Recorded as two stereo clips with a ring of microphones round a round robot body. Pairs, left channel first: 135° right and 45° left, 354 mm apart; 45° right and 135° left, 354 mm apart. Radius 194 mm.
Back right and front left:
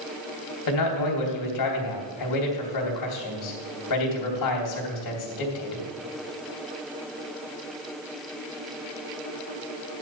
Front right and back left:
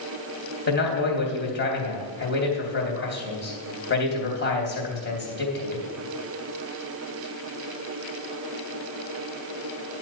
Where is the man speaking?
105° right, 3 m.